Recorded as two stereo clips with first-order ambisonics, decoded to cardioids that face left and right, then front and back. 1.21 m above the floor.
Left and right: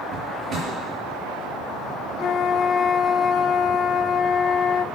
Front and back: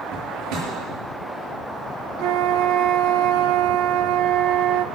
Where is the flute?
150° left, 0.6 m.